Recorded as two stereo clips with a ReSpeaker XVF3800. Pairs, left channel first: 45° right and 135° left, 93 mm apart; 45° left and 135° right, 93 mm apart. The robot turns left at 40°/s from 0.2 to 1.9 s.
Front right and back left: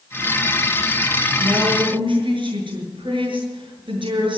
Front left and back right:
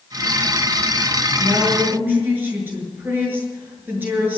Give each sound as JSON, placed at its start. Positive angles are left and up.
{"t": 1.4, "sound": "a woman speaking", "azimuth_deg": 180, "distance_m": 7.5}